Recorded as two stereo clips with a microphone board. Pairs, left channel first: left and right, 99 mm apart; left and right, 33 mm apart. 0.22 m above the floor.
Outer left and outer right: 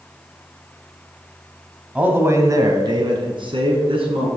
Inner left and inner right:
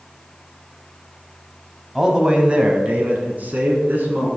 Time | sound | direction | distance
1.9 | a man speaking | 15° right (ahead or behind) | 1.0 m